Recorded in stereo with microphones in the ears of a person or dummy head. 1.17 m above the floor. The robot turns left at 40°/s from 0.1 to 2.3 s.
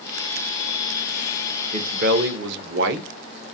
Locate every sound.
1.7 s a man speaking: 40° right (ahead or behind), 0.5 m; by 3.1 s 60° right (ahead or behind), 0.5 m